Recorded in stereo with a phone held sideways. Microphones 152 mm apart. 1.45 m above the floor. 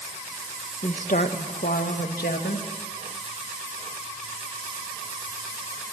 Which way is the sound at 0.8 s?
50° left (ahead or behind).